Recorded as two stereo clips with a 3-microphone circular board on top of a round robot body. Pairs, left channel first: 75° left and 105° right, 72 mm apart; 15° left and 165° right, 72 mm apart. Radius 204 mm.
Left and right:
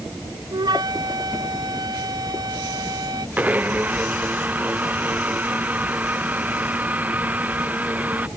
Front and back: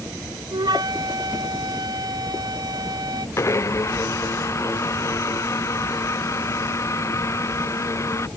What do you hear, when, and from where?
0.5 s a flute: 135° right
3.4 s a blender: 35° right